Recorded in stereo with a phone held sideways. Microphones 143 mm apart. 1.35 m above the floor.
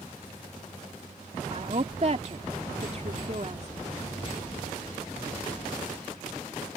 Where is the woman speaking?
45° right (ahead or behind).